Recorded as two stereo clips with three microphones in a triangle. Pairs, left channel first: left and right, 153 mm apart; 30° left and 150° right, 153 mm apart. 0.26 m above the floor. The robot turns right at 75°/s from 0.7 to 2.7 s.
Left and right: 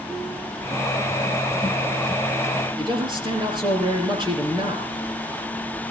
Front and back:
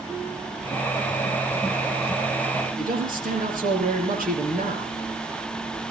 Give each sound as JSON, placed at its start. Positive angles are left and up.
{"t": 2.8, "sound": "a man speaking", "azimuth_deg": -145, "distance_m": 6.5}